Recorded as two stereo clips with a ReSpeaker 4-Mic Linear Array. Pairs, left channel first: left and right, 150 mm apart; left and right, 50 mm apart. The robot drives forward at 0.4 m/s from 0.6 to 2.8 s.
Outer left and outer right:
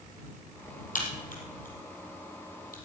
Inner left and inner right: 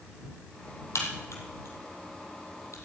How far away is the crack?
About 4.5 m.